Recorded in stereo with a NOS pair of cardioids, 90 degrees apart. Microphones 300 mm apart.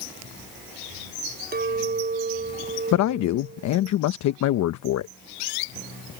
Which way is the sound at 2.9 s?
65° left.